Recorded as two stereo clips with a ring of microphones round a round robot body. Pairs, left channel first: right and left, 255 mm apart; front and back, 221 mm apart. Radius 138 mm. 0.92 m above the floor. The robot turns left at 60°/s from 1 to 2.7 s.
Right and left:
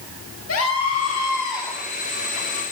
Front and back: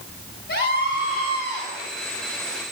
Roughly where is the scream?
Ahead right.